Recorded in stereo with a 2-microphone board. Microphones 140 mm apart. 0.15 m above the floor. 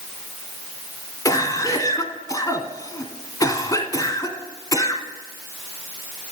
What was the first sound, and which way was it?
A cough, 25° left (ahead or behind).